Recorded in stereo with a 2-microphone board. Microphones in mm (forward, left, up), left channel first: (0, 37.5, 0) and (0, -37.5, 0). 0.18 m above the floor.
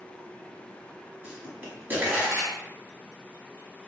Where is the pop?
20° right (ahead or behind), 1.2 m.